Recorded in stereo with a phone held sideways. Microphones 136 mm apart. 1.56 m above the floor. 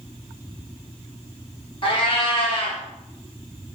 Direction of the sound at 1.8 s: 40° left (ahead or behind).